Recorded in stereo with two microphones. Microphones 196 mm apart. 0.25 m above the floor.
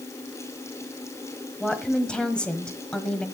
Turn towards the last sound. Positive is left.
turn(degrees=5)  # may be behind; listen again after turning